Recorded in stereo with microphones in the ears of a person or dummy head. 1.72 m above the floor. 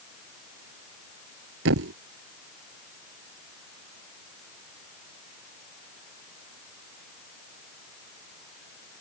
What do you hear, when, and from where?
1.6 s a thud: 70° right (ahead or behind)